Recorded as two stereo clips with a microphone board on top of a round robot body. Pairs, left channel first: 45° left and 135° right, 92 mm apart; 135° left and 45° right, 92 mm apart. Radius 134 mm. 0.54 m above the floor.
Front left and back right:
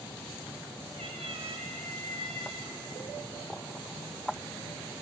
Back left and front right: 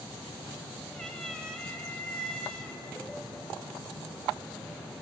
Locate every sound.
0.9 s a cat meowing: 140° right, 1.6 m